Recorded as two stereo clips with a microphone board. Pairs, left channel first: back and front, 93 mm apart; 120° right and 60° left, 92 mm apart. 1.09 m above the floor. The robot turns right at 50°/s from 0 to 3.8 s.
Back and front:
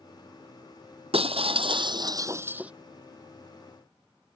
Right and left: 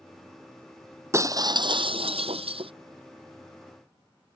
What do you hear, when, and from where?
1.1 s breaking glass: straight ahead; by 2.7 s 80° left